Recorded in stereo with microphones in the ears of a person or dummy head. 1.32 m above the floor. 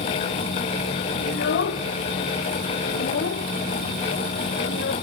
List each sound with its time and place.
1.3 s a child speaking: 60° left (ahead or behind), 0.8 m